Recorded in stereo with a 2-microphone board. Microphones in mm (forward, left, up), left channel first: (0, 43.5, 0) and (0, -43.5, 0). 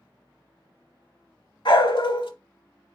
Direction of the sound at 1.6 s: 70° left (ahead or behind).